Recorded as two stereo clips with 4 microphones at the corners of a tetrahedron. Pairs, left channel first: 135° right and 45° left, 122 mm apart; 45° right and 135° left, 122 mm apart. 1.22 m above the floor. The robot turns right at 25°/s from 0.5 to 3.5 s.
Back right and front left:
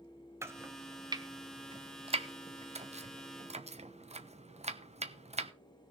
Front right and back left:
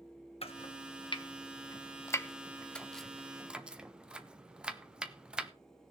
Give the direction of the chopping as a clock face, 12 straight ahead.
1 o'clock.